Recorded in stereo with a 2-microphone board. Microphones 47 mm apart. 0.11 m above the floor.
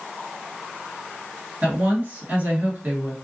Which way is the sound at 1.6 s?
30° right (ahead or behind).